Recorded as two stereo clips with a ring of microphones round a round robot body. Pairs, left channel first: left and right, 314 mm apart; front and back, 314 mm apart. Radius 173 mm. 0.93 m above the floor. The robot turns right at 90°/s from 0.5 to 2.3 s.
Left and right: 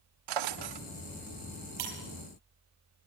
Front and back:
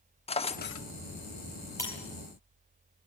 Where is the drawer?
70° right, 1.0 m; by 0.9 s 40° right, 1.0 m.